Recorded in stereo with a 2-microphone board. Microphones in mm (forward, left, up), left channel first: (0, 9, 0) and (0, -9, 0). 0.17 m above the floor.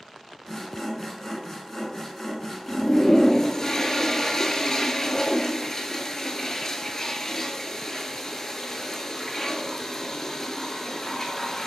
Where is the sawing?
20° left (ahead or behind), 1.1 m.